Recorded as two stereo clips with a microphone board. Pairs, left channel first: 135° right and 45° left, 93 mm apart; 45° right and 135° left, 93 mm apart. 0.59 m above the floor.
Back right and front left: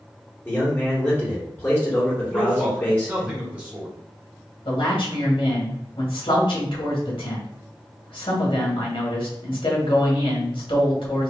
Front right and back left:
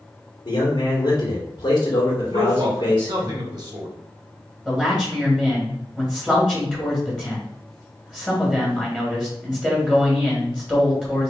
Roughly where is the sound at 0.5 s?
Right.